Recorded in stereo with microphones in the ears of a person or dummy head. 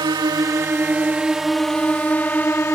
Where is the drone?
15° right (ahead or behind); by 2.8 s 10° left (ahead or behind).